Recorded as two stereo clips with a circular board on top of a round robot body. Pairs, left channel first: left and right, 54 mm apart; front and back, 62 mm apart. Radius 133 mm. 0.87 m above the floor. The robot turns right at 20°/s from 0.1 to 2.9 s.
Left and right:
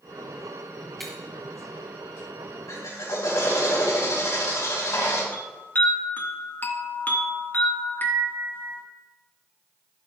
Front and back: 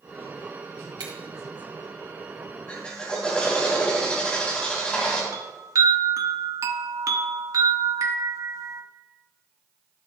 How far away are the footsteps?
No footsteps in this recording.